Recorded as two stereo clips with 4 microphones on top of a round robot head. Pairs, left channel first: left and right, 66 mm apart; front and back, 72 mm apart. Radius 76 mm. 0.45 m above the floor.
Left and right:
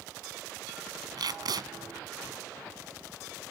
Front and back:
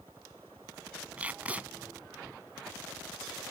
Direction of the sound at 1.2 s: 105° right.